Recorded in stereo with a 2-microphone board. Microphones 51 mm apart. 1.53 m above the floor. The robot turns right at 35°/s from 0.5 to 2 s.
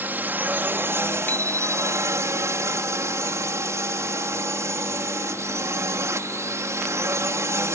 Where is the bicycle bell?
40° left (ahead or behind); by 2.3 s 65° left (ahead or behind).